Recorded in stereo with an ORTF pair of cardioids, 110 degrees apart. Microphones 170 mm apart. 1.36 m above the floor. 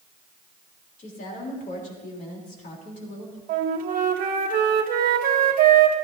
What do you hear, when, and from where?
1.0 s a woman speaking: 50° left, 3.5 m
3.5 s a flute: 60° right, 1.3 m